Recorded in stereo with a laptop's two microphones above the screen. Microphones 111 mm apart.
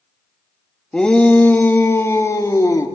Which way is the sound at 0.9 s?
5° left (ahead or behind).